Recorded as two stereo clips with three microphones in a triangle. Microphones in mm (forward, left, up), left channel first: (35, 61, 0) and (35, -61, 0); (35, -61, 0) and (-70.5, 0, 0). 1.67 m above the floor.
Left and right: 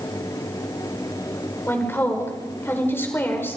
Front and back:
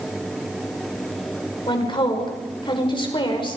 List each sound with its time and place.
1.7 s a woman speaking: 20° left, 5.5 m